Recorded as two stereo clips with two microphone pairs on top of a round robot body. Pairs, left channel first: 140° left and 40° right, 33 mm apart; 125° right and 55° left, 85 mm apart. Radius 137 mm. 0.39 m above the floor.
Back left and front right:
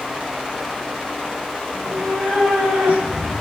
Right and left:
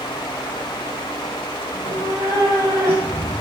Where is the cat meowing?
5° left, 5 m; by 3.3 s 5° right, 5 m.